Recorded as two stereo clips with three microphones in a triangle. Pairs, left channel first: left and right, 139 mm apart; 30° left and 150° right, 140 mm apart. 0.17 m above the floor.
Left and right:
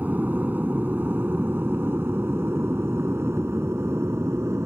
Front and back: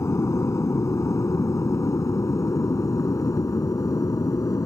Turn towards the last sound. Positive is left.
turn(degrees=-25)